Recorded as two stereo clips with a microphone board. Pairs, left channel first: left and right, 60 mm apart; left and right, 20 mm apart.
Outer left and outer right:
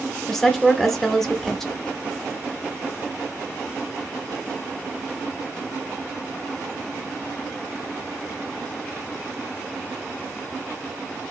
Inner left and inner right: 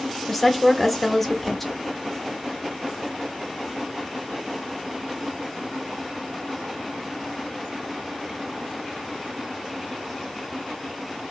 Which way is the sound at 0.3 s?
5° left (ahead or behind).